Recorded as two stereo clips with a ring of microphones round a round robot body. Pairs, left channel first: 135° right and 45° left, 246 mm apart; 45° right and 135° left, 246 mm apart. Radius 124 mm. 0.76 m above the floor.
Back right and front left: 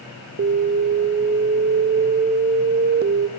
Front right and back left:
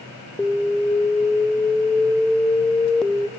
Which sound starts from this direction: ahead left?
An alarm, at 0.4 s.